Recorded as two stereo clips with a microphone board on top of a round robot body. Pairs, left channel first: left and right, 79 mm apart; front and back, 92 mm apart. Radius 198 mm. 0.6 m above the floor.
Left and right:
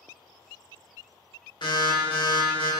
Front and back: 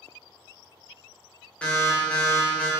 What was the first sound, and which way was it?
An alarm, 75° left.